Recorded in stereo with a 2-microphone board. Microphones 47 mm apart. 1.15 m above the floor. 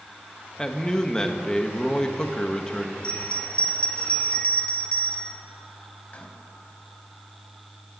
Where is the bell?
25° left (ahead or behind), 1.1 m.